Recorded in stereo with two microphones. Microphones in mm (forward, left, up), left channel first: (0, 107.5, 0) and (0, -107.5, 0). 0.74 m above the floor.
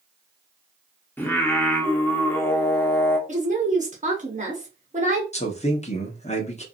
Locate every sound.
1.2 s singing: 10° left (ahead or behind), 0.9 m
3.3 s a woman speaking: 35° right (ahead or behind), 1.2 m
5.3 s a man speaking: 30° left (ahead or behind), 1.1 m